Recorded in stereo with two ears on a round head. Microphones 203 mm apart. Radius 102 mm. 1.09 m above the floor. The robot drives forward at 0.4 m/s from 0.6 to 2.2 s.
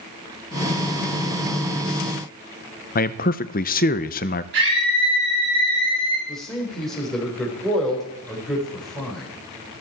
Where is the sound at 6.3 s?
Centre (ahead or behind), 4 m.